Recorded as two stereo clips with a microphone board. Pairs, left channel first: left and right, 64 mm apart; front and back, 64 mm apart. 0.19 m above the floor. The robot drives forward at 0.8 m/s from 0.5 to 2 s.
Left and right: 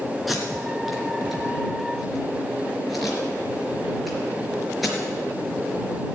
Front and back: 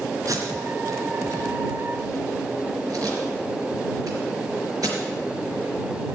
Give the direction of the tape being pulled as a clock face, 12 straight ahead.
6 o'clock.